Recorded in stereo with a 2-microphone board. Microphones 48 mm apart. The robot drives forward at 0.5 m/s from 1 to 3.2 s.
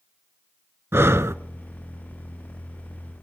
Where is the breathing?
65° right (ahead or behind), 0.6 m; by 1.4 s 85° right, 0.6 m.